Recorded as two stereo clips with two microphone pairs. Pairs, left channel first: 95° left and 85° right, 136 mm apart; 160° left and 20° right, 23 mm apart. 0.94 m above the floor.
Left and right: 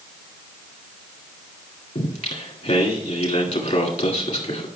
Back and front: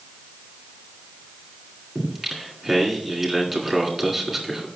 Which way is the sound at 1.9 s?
65° left.